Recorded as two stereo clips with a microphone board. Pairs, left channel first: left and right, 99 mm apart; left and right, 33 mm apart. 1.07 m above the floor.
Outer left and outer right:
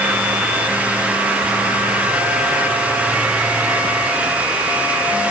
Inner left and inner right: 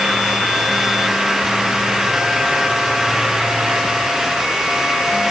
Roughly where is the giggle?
No giggle in this recording.